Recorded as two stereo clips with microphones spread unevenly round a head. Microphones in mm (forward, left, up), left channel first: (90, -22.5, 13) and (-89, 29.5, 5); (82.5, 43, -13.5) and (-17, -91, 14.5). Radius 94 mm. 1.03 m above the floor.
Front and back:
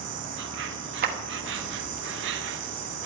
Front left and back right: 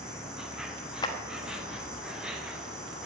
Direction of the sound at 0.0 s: 145° left.